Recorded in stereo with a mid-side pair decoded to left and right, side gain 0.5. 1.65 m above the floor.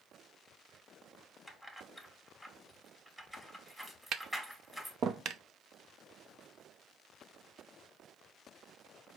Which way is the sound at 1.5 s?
5° right.